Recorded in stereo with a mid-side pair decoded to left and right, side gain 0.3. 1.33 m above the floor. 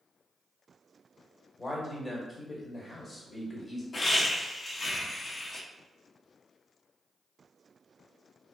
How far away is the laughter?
About 0.8 m.